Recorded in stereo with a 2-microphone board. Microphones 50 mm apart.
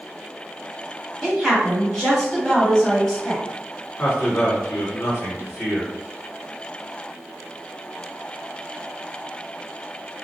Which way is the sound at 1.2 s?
5° left (ahead or behind).